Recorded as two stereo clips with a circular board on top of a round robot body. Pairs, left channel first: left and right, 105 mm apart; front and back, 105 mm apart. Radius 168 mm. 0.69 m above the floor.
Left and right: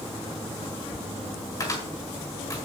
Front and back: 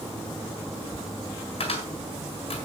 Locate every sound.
1.6 s a cupboard door: 35° left, 4 m